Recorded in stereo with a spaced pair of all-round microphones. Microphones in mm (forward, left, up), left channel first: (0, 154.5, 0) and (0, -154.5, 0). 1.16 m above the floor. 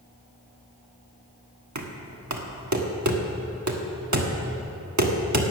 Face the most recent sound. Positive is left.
turn(degrees=-65)  # may be behind; listen again after turning